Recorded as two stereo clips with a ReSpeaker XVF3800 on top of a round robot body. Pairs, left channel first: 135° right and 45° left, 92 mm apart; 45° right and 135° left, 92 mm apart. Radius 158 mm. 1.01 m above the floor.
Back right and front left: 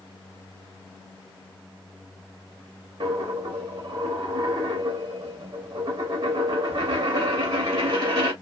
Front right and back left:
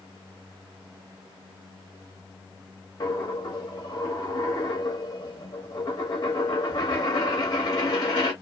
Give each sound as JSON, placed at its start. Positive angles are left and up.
{"t": 3.0, "sound": "a dropped coin", "azimuth_deg": 5, "distance_m": 0.7}